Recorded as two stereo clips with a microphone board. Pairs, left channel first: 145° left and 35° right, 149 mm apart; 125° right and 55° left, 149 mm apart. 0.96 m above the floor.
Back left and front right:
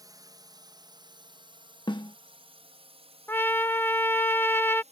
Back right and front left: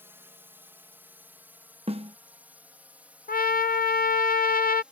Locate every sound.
0.0 s a drone: 5° right; by 4.9 s 25° right
1.9 s a snare drum: 95° left
3.3 s a trumpet: 140° right